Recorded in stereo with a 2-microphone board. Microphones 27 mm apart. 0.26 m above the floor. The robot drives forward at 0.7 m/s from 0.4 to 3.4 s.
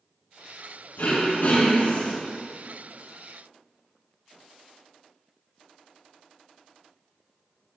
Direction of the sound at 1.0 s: 75° left (ahead or behind).